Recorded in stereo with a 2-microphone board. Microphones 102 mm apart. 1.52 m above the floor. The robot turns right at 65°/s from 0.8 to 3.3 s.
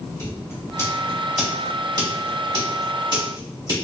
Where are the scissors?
25° left (ahead or behind), 2.0 m; by 3.8 s 45° right (ahead or behind), 2.0 m.